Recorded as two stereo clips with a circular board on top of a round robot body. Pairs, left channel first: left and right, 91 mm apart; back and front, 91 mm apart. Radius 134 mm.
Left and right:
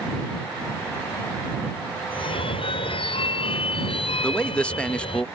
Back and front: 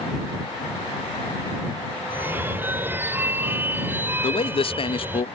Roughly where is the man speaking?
Behind.